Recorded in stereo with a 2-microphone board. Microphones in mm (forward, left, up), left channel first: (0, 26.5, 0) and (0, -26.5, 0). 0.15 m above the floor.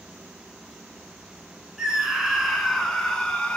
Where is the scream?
10° right (ahead or behind), 1.6 m; by 3.6 s 20° left (ahead or behind), 1.4 m.